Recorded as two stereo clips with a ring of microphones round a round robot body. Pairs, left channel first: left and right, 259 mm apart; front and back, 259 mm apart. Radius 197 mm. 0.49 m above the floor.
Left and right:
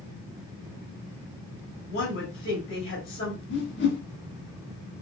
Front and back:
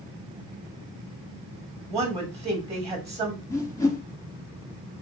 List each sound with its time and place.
1.9 s a woman speaking: 110° left, 1.5 m
3.5 s a whoosh: 75° left, 0.9 m